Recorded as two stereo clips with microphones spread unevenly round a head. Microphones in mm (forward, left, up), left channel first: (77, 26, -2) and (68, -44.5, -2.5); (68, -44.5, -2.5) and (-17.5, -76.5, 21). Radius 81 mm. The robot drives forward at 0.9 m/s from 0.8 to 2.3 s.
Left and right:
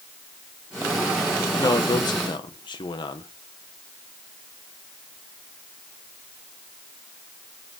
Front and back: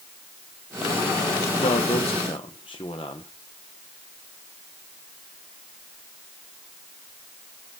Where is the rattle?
No rattle in this recording.